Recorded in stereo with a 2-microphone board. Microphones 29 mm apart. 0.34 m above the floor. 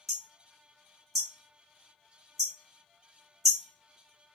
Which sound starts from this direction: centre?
Hammering, at 0.1 s.